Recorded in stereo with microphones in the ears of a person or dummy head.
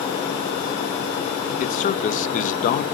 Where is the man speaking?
50° left (ahead or behind), 1.2 m.